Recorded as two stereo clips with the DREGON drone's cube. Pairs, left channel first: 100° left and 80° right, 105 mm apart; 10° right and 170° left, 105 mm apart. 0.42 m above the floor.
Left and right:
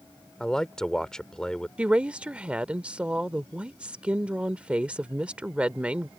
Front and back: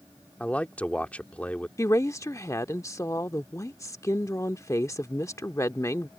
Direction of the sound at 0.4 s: 30° left.